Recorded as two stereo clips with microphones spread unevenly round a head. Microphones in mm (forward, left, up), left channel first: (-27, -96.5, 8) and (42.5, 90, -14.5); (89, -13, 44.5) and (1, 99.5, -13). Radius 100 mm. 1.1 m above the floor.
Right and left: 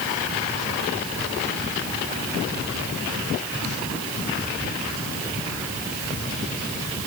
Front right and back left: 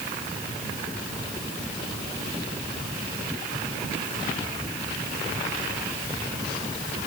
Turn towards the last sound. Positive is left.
No sound to turn to.